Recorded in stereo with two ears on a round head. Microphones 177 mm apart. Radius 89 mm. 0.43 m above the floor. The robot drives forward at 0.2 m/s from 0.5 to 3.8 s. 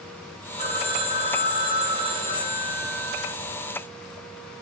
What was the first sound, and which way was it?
A phone ringing, 30° right (ahead or behind).